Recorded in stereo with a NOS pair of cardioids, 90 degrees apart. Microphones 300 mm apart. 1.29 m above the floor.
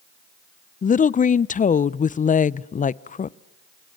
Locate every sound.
0.8 s a woman speaking: 25° left, 0.5 m